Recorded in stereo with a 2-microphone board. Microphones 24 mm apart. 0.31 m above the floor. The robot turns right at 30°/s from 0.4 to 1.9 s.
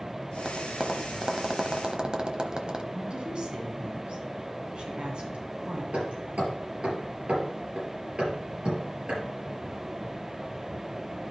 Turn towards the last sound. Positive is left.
turn(degrees=-70)  # may be behind; listen again after turning